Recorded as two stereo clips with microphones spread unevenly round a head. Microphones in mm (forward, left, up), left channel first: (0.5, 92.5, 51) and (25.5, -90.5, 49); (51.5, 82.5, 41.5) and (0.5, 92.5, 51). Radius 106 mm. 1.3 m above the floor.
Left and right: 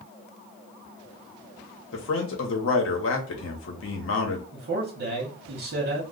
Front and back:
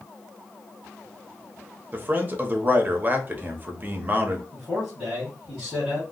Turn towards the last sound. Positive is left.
turn(degrees=-115)